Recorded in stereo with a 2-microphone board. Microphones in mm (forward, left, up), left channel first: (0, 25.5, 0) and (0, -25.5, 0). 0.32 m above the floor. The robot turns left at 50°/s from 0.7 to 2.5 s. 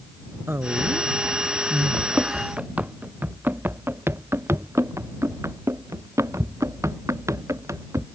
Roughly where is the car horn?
No car horn in this recording.